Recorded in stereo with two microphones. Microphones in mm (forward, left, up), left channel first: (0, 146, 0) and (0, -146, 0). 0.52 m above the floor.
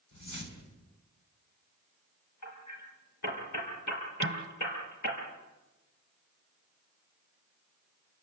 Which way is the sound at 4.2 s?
45° right (ahead or behind).